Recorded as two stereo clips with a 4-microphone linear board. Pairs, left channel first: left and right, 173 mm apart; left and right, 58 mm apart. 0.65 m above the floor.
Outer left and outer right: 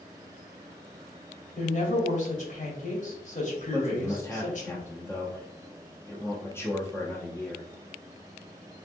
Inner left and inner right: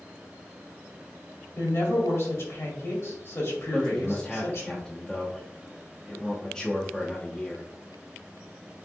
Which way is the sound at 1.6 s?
50° left (ahead or behind).